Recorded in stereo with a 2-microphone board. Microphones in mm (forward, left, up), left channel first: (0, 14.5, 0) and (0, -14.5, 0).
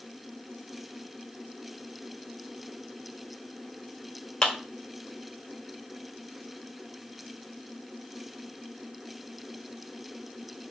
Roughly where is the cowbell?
No cowbell in this recording.